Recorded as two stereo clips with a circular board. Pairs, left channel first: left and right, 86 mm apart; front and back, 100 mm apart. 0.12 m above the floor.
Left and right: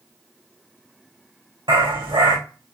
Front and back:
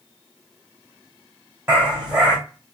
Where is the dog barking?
100° right, 3.5 m.